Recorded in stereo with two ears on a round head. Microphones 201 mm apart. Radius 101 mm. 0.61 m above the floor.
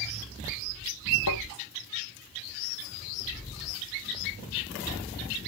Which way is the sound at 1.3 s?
85° left.